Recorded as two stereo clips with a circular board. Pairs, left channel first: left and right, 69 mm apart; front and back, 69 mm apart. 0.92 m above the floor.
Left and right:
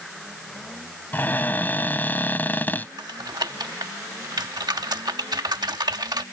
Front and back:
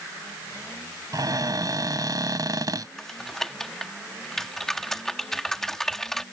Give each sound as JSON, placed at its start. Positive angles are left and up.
{"t": 1.1, "sound": "a cupboard door", "azimuth_deg": 155}
{"t": 3.0, "sound": "typing on a keyboard", "azimuth_deg": -85}